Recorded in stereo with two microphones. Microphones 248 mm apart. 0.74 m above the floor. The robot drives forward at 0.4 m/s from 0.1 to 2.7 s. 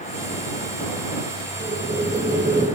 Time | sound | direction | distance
1.6 | boiling | 40° right (ahead or behind) | 0.9 m